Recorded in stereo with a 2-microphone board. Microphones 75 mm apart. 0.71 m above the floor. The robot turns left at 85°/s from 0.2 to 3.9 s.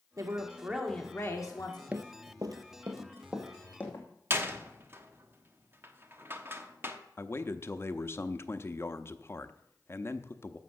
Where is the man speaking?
35° left (ahead or behind), 0.7 m.